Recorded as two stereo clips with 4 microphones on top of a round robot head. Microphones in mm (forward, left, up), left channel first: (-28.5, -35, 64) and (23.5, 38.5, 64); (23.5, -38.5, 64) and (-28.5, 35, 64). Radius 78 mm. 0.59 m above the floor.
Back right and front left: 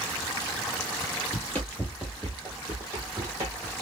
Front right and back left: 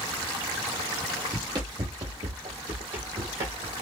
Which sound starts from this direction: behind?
Running footsteps, at 1.3 s.